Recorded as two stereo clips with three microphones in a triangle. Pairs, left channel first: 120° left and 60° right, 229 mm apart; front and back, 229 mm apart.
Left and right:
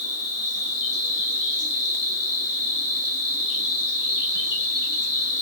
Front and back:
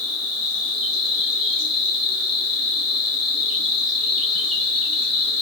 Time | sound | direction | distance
0.0 | an insect | 85° right | 2 m